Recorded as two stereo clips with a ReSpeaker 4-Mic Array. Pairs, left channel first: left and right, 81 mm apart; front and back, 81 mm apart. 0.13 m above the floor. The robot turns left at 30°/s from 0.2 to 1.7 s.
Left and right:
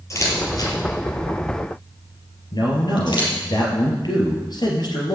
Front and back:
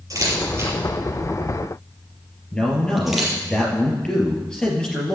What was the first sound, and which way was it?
A camera shutter, 135° left.